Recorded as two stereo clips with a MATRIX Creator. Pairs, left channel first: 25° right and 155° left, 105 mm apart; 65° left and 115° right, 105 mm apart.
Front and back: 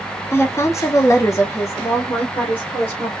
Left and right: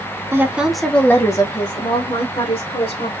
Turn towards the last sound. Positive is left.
turn(degrees=50)